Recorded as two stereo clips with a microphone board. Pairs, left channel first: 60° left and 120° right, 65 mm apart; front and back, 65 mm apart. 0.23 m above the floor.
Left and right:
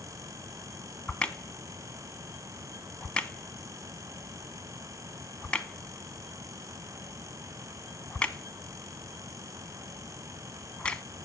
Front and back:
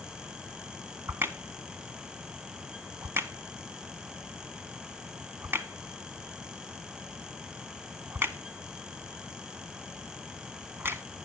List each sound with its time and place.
1.1 s a crack: 130° left, 0.6 m